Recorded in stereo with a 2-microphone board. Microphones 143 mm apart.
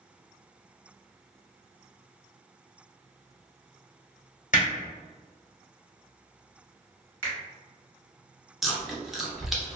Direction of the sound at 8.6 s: Centre (ahead or behind).